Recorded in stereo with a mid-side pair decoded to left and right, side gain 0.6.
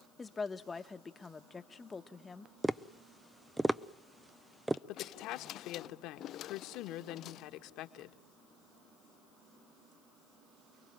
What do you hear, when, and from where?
0.2 s a woman speaking: 20° left, 1.5 m
2.6 s tapping: 10° right, 0.8 m
4.9 s a woman speaking: 70° left, 2 m